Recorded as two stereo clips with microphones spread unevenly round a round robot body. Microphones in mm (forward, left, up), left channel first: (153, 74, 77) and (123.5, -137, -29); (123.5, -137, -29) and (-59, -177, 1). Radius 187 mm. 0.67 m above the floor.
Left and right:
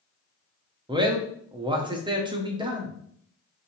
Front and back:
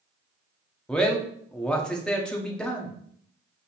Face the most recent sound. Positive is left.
turn(degrees=-65)